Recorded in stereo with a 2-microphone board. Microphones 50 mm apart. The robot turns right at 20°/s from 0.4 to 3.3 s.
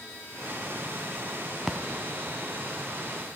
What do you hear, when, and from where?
1.7 s a splash: 10° right (ahead or behind), 0.7 m